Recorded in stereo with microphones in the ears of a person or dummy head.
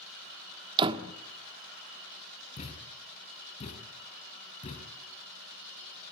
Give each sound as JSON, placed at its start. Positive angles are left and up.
{"t": 0.8, "sound": "a door slam", "side_deg": -25, "distance_m": 1.4}
{"t": 2.6, "sound": "a thud", "side_deg": 35, "distance_m": 5.0}